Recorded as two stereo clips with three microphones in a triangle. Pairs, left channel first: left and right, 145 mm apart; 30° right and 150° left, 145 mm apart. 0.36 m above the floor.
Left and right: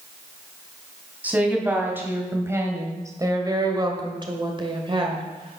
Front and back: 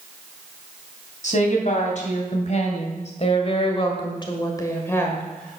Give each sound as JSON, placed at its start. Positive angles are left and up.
{"t": 1.2, "sound": "a woman speaking", "azimuth_deg": -10, "distance_m": 3.0}